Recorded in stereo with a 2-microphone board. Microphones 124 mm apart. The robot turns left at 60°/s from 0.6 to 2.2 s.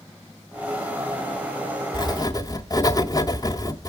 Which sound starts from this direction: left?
Writing, at 1.9 s.